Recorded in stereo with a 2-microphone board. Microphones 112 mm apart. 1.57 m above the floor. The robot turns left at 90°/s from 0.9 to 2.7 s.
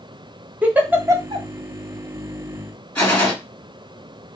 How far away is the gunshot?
About 2 m.